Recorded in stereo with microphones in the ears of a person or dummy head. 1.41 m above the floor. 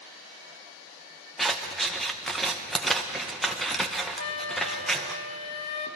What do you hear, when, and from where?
1.4 s scissors: 5° right (ahead or behind), 0.7 m
4.2 s a flute: 45° left (ahead or behind), 1.2 m